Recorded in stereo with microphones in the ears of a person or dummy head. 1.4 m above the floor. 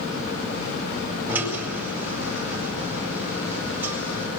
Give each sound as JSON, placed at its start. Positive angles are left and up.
{"t": 1.3, "sound": "a drill", "side_deg": -10, "distance_m": 7.5}